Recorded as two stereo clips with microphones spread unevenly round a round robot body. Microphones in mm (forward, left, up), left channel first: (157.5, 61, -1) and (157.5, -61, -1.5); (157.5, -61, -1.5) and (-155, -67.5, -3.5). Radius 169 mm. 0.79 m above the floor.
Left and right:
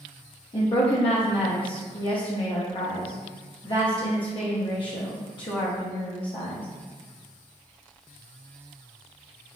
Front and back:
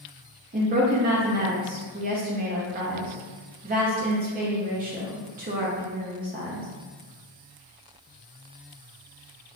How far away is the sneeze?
I don't hear a sneeze.